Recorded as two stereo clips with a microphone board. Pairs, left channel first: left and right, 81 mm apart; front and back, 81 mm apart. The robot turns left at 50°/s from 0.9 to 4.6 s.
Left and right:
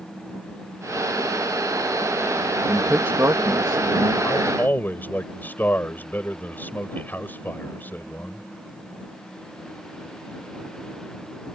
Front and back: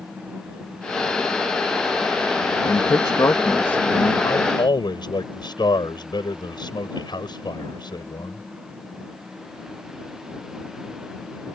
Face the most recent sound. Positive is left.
turn(degrees=20)